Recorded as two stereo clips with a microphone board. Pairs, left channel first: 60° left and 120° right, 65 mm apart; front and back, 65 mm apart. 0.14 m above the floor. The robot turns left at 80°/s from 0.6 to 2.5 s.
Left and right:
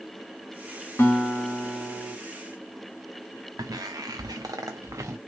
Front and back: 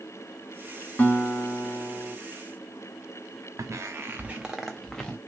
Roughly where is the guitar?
Ahead left.